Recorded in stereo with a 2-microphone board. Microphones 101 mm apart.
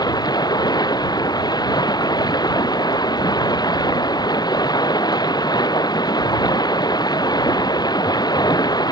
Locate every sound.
0.0 s running water: 45° left (ahead or behind)